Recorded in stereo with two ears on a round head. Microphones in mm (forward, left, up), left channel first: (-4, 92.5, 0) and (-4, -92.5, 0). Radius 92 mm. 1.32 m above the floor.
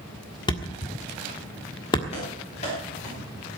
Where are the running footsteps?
30° left (ahead or behind), 7.5 m; by 3.5 s 40° left (ahead or behind), 9 m.